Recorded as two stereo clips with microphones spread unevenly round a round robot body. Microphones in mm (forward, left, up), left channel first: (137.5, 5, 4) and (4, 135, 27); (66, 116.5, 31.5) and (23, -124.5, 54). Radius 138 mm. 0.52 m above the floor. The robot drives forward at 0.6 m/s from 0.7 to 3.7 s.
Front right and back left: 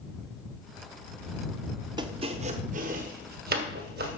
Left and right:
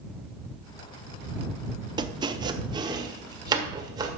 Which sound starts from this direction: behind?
Chopping, at 2.0 s.